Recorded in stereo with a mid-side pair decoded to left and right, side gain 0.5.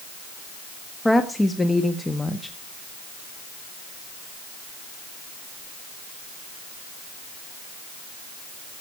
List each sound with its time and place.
1.1 s a woman speaking: 15° left, 1.4 m